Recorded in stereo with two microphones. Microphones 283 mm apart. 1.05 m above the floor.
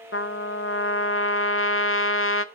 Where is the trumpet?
50° left (ahead or behind), 0.5 m.